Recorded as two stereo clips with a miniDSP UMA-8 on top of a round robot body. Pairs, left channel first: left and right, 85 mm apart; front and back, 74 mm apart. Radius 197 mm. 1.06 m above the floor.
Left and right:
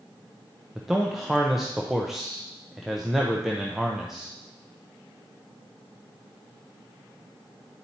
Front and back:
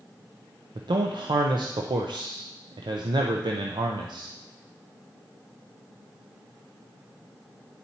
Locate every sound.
0.8 s a man speaking: straight behind, 0.6 m